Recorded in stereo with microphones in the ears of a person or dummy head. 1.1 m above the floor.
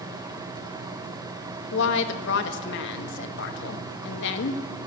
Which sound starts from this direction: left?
A woman speaking, at 1.7 s.